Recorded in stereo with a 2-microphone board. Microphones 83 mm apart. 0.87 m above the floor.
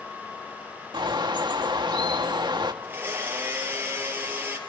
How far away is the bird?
About 1.6 m.